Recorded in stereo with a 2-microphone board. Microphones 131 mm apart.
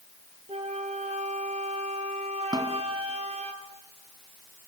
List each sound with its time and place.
0.5 s a flute: 50° right (ahead or behind), 1.8 m
2.5 s a snare drum: 30° right (ahead or behind), 1.8 m